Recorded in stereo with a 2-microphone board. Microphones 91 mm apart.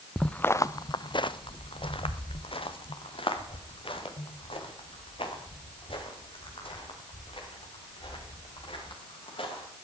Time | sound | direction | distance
0.2 | footsteps | 5° left (ahead or behind) | 0.6 m